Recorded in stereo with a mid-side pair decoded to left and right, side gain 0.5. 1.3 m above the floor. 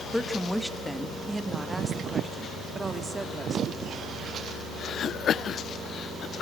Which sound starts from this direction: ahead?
A woman speaking, at 0.1 s.